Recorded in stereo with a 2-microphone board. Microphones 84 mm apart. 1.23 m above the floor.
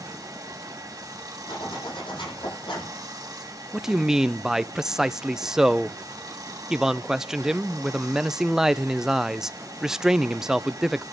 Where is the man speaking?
5° right (ahead or behind), 0.6 m.